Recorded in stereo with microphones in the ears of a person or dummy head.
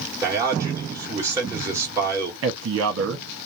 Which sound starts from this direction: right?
A man speaking, at 2.4 s.